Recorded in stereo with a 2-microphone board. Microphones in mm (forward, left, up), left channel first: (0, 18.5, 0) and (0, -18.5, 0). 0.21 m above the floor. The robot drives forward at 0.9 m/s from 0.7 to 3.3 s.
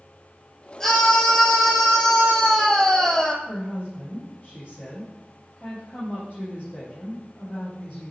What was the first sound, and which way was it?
A scream, 15° left (ahead or behind).